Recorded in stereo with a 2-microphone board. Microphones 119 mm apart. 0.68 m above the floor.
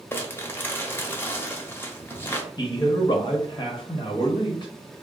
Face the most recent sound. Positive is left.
turn(degrees=35)  # may be behind; listen again after turning